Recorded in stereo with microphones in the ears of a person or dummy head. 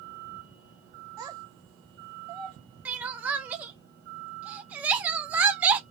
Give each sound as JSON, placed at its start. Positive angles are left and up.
{"t": 1.2, "sound": "a child speaking", "side_deg": -15, "distance_m": 0.6}
{"t": 2.9, "sound": "crying", "side_deg": -5, "distance_m": 0.5}